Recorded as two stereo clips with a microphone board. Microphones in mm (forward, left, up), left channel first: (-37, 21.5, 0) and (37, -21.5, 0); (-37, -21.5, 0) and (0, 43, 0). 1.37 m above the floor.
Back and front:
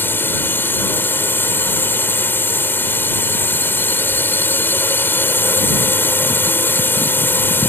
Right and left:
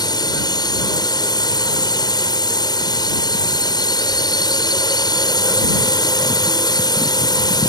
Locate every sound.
0.0 s a drone: 145° right